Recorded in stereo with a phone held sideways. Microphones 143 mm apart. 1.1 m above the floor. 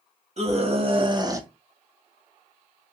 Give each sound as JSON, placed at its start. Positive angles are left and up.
{"t": 0.4, "sound": "a scream", "side_deg": -50, "distance_m": 1.7}